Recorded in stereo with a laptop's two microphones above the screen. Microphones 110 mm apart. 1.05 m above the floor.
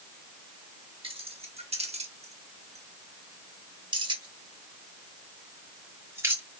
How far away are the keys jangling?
About 1.3 m.